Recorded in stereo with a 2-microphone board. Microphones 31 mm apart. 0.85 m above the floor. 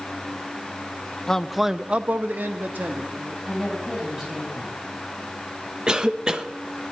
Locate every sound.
1.3 s a man speaking: 15° left (ahead or behind), 0.6 m; by 3.3 s 70° right (ahead or behind), 1.4 m
3.4 s a woman speaking: 10° right (ahead or behind), 7.5 m
5.9 s a cough: 25° right (ahead or behind), 0.9 m